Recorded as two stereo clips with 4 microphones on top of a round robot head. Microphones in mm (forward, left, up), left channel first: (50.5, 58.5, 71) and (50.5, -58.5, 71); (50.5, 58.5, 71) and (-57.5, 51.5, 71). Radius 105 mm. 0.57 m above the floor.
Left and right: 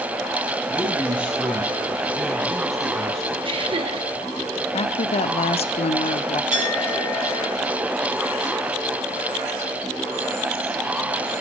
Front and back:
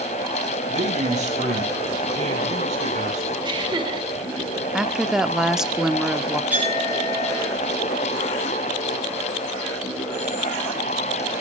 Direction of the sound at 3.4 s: 130° right.